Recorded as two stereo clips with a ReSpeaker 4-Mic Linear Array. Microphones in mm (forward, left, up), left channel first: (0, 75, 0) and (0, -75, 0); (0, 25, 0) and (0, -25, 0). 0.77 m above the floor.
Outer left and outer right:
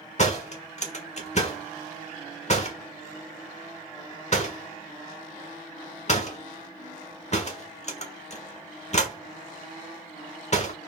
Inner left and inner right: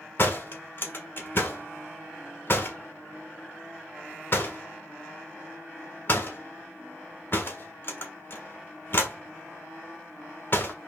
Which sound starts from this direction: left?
A door slam, at 0.2 s.